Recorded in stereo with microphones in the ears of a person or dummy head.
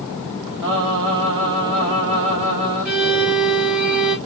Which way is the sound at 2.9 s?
Centre (ahead or behind).